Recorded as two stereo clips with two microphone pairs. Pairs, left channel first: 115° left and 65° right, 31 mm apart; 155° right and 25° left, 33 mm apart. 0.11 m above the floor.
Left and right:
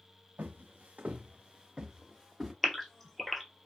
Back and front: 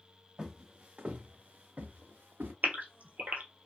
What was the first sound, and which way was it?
Footsteps, 50° right.